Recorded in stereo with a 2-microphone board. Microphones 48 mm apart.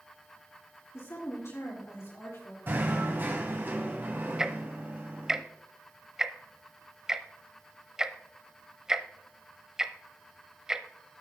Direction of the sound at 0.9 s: 75° left (ahead or behind).